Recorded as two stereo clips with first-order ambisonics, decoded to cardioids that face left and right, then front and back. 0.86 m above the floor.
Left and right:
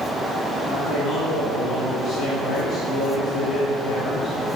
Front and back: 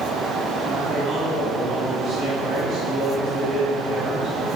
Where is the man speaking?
105° left, 1.2 m.